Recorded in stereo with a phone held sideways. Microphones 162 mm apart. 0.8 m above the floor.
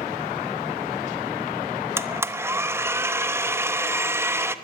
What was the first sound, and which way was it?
A blender, 15° right (ahead or behind).